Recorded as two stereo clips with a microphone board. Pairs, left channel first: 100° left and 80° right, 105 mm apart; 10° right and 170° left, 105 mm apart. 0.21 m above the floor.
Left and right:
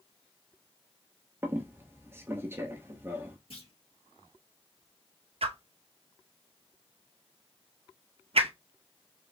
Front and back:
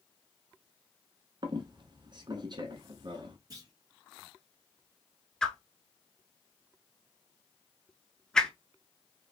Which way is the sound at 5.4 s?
95° right.